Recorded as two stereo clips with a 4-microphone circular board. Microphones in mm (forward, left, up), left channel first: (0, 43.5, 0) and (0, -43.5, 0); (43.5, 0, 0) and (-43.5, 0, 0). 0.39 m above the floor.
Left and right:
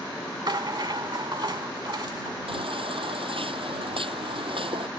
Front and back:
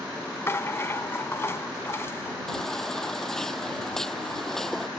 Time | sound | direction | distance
0.5 | a rattle | 60° right | ?
2.5 | a baby crying | 85° right | ?